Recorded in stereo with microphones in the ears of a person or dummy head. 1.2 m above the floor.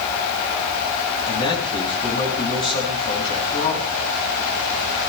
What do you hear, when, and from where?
1.3 s a man speaking: 25° left (ahead or behind), 8.5 m